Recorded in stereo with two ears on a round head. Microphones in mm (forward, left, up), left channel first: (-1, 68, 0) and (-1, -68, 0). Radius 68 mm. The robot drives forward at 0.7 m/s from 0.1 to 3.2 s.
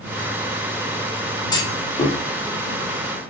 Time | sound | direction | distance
1.5 | a clunk | 25° left (ahead or behind) | 1.5 m